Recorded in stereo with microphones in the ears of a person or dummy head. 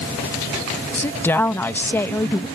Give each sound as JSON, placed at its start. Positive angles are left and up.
{"t": 0.9, "sound": "a woman speaking", "side_deg": 10}